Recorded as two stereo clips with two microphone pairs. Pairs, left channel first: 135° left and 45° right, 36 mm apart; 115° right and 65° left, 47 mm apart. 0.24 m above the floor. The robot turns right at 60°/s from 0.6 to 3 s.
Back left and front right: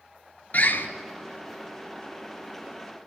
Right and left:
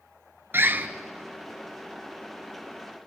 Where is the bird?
95° left, 1.0 m; by 0.9 s 110° left, 1.0 m.